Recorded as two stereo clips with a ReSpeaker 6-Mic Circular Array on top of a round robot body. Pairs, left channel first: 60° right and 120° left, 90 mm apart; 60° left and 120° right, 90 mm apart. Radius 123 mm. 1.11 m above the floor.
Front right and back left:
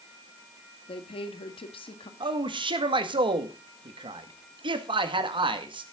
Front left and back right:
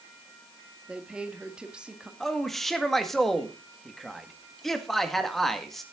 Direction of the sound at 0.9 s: 40° right.